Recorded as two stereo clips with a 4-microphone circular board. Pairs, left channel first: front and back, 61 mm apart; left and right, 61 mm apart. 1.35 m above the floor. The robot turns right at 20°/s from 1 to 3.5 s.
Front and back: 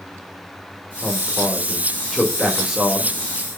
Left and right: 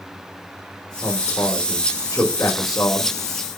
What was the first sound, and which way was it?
A man speaking, 65° left.